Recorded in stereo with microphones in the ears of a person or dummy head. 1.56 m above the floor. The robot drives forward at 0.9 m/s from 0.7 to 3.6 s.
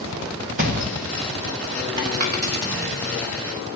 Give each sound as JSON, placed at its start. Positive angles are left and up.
{"t": 0.6, "sound": "a thud", "side_deg": -45, "distance_m": 1.2}
{"t": 2.2, "sound": "a dropped coin", "side_deg": -50, "distance_m": 1.6}